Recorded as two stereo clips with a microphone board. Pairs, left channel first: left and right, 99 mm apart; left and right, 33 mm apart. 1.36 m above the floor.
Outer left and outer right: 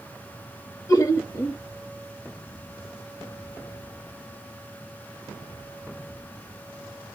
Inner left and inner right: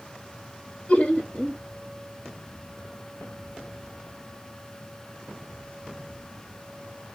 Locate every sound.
0.9 s laughter: 35° left (ahead or behind), 1.1 m